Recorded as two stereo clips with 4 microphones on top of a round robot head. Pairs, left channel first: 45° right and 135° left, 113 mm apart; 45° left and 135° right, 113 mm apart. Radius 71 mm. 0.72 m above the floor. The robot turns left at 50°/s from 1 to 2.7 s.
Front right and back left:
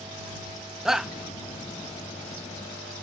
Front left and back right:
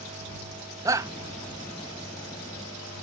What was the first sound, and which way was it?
A shout, 145° right.